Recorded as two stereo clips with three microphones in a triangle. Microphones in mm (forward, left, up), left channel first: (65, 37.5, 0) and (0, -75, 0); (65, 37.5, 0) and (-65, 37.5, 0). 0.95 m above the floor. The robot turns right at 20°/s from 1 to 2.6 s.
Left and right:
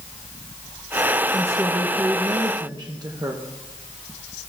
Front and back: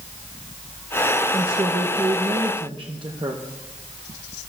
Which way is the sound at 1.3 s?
175° left.